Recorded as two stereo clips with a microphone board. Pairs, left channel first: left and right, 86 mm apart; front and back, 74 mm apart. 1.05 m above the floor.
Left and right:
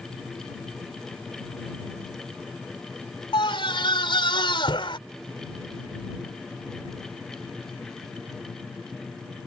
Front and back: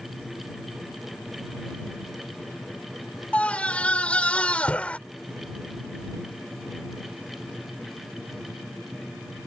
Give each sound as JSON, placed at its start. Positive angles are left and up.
{"t": 3.3, "sound": "a scream", "azimuth_deg": 75}